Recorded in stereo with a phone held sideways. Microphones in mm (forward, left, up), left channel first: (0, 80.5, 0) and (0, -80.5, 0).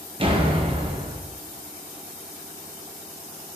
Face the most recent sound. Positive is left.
turn(degrees=-35)  # may be behind; listen again after turning